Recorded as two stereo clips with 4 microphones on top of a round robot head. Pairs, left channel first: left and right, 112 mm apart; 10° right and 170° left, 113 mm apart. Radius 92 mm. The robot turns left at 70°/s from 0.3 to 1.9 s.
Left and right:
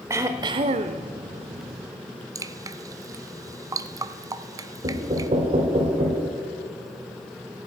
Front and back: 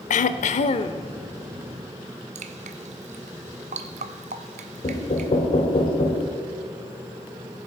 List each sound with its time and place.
0.1 s throat clearing: 20° right, 0.5 m; by 1.0 s 70° right, 0.5 m
2.4 s dripping: 150° right, 0.6 m
4.8 s knocking: 50° right, 1.4 m